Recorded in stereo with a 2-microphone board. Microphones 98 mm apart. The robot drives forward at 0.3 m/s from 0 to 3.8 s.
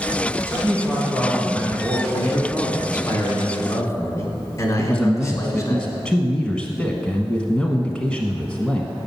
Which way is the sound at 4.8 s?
10° left (ahead or behind).